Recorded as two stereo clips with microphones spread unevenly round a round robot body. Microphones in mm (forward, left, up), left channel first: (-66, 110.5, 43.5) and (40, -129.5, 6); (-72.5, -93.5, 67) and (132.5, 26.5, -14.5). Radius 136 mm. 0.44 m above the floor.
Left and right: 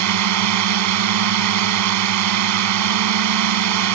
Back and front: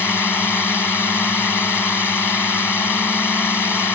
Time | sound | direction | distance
0.0 | a drone | 60° right | ?